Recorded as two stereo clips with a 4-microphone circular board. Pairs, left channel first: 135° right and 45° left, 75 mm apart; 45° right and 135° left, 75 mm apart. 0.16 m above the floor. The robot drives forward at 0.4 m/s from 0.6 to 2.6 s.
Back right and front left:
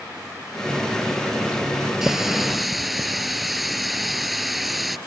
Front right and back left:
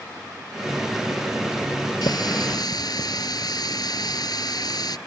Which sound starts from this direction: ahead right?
A running tap, at 2.0 s.